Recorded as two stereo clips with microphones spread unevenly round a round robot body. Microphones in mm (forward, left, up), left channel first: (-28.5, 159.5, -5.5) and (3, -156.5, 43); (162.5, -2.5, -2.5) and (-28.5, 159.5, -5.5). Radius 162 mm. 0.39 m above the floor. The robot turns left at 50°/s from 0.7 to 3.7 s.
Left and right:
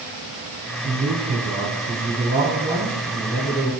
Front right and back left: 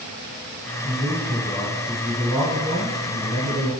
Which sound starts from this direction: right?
A man speaking, at 0.8 s.